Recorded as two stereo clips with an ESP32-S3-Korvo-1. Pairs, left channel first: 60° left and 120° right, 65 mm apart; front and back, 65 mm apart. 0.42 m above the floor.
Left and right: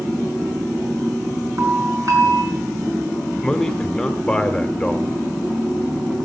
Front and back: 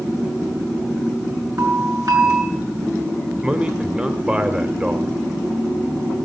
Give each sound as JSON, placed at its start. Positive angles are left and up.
{"t": 1.6, "sound": "a doorbell", "azimuth_deg": -150, "distance_m": 5.0}
{"t": 3.4, "sound": "a man speaking", "azimuth_deg": 130, "distance_m": 1.4}